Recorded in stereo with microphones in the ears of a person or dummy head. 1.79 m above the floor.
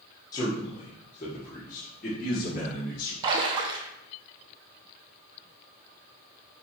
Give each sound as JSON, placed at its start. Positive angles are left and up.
{"t": 0.3, "sound": "a man speaking", "side_deg": 15, "distance_m": 1.7}
{"t": 3.2, "sound": "a splash", "side_deg": -25, "distance_m": 0.7}